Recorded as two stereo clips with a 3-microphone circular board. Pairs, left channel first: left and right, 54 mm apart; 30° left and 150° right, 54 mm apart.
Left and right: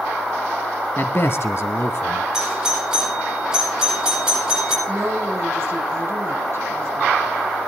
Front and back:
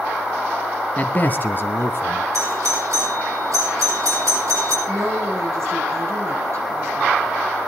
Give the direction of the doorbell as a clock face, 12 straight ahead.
6 o'clock.